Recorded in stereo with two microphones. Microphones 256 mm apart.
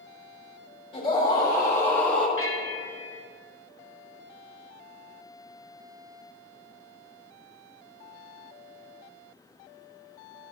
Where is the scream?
20° left (ahead or behind), 3 m; by 2.3 s centre (ahead or behind), 3 m.